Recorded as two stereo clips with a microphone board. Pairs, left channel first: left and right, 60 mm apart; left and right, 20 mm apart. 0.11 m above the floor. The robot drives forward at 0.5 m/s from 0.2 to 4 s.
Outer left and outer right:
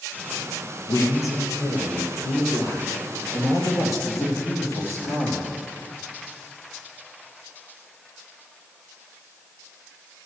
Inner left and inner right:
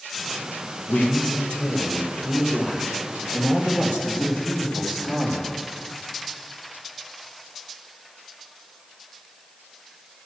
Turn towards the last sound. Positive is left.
turn(degrees=55)  # may be behind; listen again after turning